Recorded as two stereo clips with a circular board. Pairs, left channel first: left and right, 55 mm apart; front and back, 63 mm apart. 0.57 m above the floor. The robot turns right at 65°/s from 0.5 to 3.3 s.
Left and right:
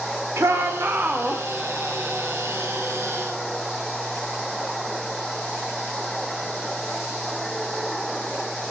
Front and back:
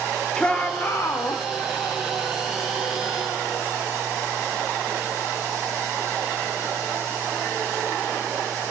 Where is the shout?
70° right, 2 m; by 1.4 s 10° right, 2 m.